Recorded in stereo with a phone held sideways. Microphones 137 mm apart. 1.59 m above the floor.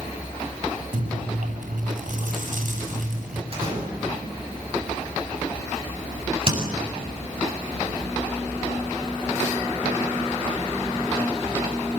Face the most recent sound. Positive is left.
turn(degrees=-45)  # may be behind; listen again after turning